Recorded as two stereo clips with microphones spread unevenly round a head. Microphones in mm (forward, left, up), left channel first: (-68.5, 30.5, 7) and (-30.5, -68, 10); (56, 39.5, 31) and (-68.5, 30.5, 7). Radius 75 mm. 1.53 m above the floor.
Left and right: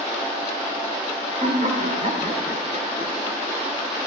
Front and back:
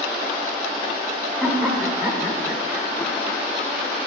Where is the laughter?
85° right, 7 m; by 3.4 s 80° right, 5 m.